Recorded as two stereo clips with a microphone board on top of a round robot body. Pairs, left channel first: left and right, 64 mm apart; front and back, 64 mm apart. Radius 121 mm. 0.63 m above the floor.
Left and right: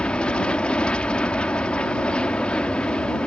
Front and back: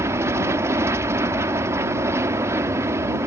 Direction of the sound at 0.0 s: 160° left.